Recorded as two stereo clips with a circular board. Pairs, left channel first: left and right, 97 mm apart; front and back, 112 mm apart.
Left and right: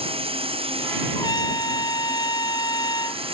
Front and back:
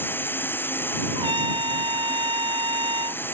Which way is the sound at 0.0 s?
70° right.